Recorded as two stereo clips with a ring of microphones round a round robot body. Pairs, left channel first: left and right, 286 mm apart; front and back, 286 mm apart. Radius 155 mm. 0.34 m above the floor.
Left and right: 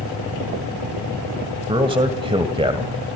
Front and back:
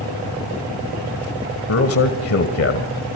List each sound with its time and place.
1.7 s a man speaking: 20° right, 1.7 m